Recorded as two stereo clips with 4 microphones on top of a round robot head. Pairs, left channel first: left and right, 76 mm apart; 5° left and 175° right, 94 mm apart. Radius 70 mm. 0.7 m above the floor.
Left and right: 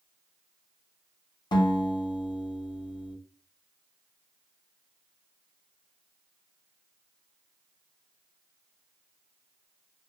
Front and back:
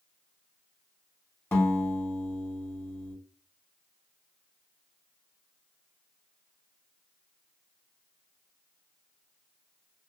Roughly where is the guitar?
Left.